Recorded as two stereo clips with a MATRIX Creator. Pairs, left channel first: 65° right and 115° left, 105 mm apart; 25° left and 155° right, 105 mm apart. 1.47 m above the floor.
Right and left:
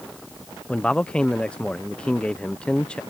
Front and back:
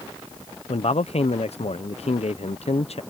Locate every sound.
0.7 s a man speaking: 15° left